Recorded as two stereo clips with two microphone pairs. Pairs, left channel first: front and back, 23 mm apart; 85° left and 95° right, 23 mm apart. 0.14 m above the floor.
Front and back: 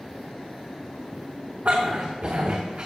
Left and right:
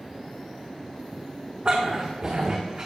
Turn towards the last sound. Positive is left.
turn(degrees=-150)